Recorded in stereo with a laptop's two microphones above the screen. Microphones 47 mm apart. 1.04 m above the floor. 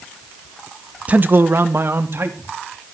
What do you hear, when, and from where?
1.1 s a man speaking: 30° right (ahead or behind), 0.5 m; by 2.5 s 60° right (ahead or behind), 2.5 m